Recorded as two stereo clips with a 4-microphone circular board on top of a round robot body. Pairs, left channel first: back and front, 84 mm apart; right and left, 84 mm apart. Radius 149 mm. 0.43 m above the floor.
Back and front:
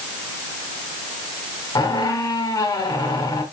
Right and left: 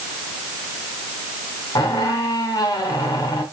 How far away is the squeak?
About 2 m.